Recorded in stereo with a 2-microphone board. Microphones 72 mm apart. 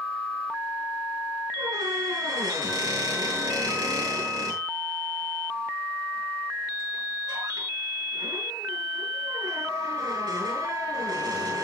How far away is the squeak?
About 7.5 m.